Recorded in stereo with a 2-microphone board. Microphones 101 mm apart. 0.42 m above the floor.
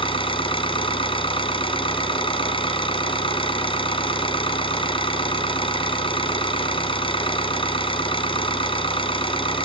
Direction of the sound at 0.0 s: 60° left (ahead or behind).